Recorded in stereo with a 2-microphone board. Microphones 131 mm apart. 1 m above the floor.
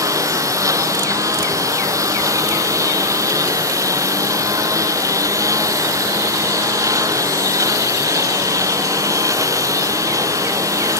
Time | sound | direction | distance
0.0 | a lawn mower | 25° right (ahead or behind) | ?